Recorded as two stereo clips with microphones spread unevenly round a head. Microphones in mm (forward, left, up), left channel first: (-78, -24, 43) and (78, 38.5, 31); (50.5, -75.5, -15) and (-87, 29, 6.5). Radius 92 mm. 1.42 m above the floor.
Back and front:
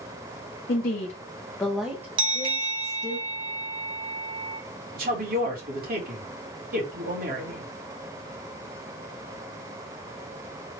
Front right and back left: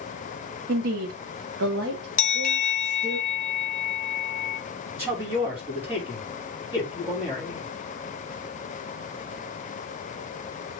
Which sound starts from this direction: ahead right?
A bell, at 2.2 s.